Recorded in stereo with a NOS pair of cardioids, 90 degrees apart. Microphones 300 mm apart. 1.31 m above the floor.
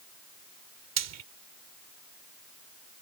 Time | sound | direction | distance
1.0 | frying | 60° right | ?